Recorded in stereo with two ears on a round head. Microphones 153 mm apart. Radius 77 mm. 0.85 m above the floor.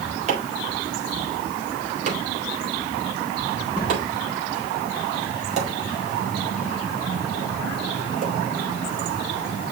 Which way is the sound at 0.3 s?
40° right (ahead or behind).